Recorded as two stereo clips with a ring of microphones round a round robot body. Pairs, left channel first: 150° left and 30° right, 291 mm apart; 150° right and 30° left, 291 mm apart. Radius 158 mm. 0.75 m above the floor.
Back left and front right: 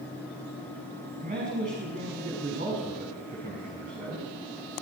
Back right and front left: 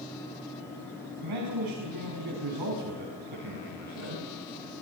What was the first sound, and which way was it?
A man speaking, 35° left.